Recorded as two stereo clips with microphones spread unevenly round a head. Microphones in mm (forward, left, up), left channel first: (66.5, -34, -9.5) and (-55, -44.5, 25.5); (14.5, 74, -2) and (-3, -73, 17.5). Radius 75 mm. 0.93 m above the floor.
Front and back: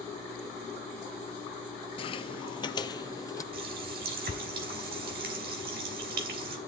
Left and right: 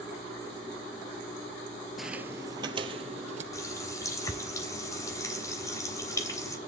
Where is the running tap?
155° left, 3 m.